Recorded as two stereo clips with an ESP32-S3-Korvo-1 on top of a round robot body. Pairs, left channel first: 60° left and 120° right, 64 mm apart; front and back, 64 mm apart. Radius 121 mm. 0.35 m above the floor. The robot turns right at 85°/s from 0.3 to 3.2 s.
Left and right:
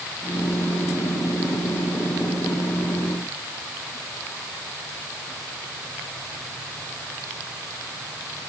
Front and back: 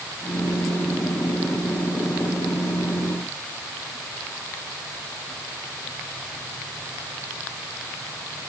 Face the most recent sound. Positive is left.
No sound to turn to.